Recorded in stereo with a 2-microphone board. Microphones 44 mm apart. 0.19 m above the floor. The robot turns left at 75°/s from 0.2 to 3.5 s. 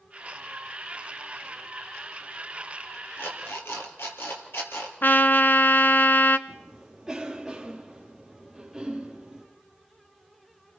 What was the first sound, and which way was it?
An alarm clock, 70° left (ahead or behind).